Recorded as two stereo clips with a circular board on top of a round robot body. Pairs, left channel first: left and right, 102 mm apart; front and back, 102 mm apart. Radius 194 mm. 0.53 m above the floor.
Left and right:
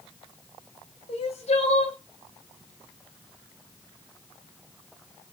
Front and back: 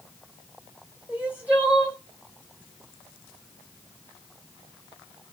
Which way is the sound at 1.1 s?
105° left.